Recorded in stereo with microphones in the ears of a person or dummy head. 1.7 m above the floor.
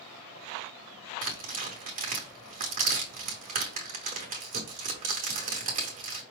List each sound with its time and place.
1.2 s tearing paper: 40° right (ahead or behind), 0.9 m